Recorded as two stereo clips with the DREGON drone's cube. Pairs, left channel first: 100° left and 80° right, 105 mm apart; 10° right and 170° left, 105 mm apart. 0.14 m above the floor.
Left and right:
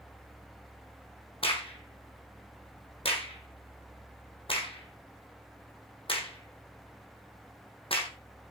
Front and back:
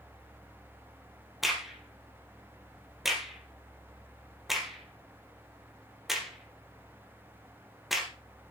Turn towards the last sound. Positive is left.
turn(degrees=80)